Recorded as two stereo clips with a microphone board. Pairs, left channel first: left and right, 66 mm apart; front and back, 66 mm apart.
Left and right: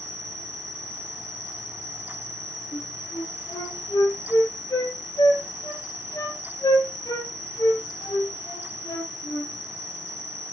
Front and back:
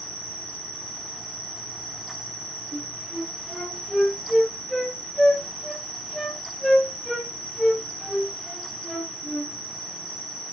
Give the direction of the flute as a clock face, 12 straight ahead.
9 o'clock.